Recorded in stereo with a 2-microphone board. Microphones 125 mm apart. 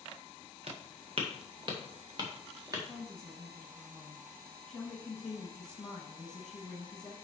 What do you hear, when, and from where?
0.7 s footsteps: 55° right (ahead or behind), 2.5 m; by 2.8 s 30° right (ahead or behind), 3 m
2.9 s a woman speaking: 5° left (ahead or behind), 1.2 m